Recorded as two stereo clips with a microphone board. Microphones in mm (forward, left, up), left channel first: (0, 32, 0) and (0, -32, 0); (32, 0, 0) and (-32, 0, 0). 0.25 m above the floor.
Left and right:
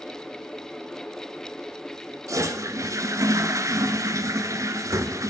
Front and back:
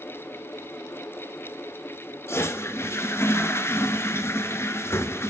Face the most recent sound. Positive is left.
turn(degrees=-50)